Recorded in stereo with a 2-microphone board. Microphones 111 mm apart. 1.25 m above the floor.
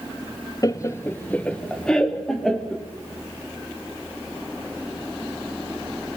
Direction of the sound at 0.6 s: 35° left (ahead or behind).